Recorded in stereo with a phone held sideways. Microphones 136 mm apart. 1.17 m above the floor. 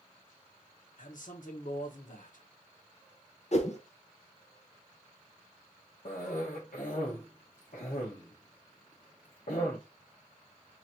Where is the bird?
No bird in this recording.